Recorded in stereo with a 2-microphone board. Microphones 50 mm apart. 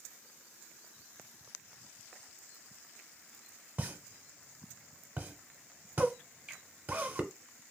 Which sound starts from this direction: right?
A pop, at 3.8 s.